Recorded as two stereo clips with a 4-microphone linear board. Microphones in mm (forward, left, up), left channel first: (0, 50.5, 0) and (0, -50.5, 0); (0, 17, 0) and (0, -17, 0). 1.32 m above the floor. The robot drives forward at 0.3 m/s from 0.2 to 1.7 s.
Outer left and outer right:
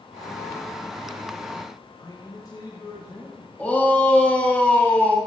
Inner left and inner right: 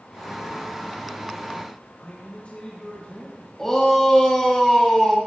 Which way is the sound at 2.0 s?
40° left (ahead or behind).